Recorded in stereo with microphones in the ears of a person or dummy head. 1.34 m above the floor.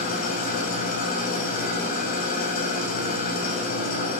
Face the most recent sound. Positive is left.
turn(degrees=45)  # may be behind; listen again after turning